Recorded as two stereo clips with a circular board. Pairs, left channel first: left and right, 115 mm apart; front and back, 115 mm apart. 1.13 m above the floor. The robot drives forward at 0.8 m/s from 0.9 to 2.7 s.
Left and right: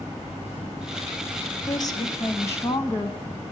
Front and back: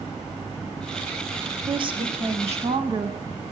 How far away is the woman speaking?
About 0.9 m.